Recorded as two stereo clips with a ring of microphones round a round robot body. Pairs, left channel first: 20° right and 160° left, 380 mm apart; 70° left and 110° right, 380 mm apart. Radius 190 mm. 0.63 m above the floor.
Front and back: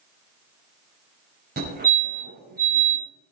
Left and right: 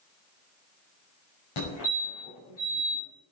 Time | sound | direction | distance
1.6 | a fire alarm | 90° left | 5.5 m